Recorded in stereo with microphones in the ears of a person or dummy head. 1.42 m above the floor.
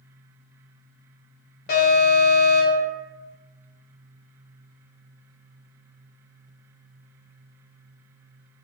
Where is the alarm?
45° left (ahead or behind), 1.1 m.